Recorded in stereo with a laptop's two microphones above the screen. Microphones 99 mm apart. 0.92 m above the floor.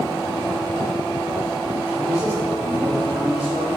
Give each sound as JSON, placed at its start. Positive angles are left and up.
{"t": 1.9, "sound": "a man speaking", "side_deg": -40, "distance_m": 1.2}